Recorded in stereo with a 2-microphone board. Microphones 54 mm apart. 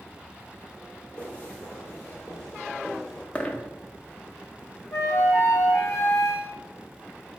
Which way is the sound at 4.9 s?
60° left (ahead or behind).